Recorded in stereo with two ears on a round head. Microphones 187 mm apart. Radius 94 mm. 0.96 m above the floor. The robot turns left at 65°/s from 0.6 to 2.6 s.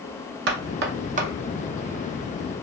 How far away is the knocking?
About 0.7 m.